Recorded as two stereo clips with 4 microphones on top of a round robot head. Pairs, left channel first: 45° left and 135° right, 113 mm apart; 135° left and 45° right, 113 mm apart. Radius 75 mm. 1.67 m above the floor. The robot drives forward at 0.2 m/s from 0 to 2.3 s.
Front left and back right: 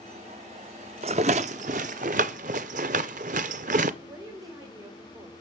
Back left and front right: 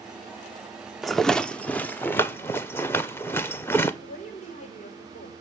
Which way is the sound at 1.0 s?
135° right.